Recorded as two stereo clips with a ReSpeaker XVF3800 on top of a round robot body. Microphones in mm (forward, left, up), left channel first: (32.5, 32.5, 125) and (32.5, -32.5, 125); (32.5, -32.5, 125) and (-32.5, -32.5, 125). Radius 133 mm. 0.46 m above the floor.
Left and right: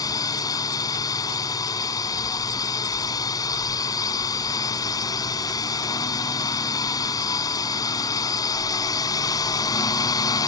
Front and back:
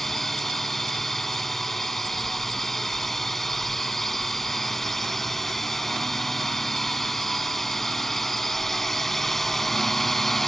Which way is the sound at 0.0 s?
85° left.